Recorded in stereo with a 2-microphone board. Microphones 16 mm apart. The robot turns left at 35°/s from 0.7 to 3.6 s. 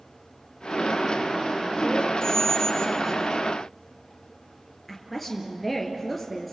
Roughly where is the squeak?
Left.